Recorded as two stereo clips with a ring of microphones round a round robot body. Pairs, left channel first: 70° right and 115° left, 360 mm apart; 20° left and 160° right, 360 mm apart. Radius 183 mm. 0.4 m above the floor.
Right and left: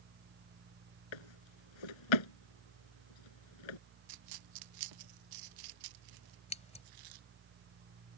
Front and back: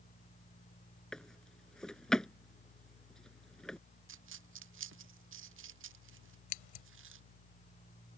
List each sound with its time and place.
1.1 s a drawer: 65° right
4.1 s a dropped coin: 145° left
6.5 s scissors: 5° left